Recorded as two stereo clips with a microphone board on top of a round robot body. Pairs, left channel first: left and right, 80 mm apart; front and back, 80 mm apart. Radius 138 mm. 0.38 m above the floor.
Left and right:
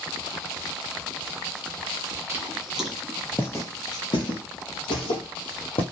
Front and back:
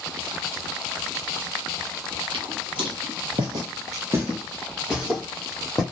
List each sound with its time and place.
2.3 s footsteps: 160° right, 0.8 m; by 5.8 s 85° left, 1.3 m